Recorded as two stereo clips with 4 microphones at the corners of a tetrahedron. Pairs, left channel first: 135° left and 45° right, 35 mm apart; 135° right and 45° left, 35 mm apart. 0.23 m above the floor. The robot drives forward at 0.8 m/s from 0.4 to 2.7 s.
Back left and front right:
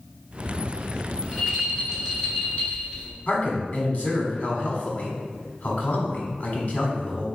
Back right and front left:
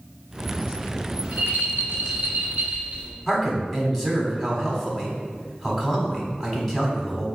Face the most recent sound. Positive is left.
turn(degrees=145)